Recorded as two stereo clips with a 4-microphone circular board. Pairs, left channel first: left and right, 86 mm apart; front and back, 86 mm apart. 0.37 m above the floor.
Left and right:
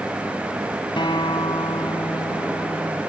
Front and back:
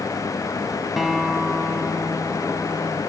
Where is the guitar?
90° left.